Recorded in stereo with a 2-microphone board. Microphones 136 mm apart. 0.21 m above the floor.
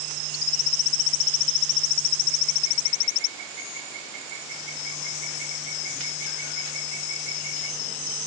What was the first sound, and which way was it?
Only background noise.